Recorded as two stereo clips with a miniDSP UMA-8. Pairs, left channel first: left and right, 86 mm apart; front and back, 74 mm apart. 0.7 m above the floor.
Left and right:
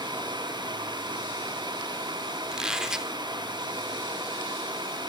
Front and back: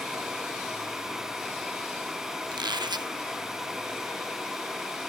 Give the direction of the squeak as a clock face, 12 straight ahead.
6 o'clock.